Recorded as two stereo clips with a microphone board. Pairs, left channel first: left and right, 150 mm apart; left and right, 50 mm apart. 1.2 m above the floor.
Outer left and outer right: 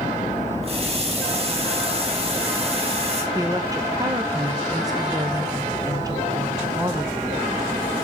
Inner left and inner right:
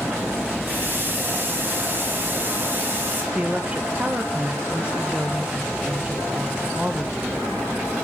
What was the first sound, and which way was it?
A running tap, 40° right (ahead or behind).